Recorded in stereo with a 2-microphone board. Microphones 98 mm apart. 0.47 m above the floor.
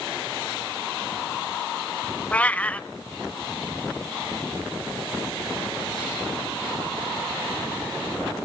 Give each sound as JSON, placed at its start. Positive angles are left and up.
{"t": 2.3, "sound": "a cat meowing", "side_deg": 15, "distance_m": 0.6}